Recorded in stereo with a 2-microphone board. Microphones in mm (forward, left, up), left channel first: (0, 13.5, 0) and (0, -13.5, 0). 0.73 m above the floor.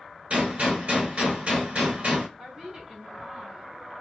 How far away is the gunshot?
About 1.6 m.